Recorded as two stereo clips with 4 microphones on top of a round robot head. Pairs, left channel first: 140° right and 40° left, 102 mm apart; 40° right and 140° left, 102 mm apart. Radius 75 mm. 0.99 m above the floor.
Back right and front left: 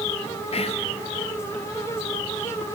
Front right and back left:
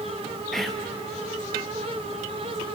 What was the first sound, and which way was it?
Whispering, 130° right.